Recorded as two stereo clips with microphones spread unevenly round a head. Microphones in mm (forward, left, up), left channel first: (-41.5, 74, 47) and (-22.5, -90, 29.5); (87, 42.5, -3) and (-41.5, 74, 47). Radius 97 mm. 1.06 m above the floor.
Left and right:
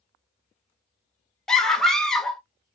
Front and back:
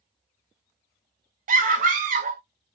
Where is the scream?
170° right, 0.7 m.